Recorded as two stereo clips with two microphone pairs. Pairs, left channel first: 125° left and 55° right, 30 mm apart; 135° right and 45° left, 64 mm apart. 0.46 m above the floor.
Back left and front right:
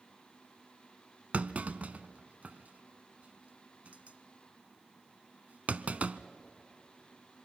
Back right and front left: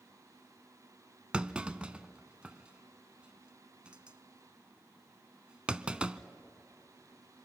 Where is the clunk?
25° right, 0.6 m.